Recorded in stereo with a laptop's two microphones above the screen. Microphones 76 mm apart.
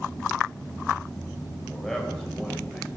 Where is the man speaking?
5° left (ahead or behind), 3.5 m.